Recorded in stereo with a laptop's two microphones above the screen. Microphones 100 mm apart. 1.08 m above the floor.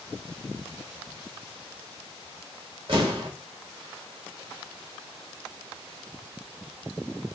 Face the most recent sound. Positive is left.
turn(degrees=-50)  # may be behind; listen again after turning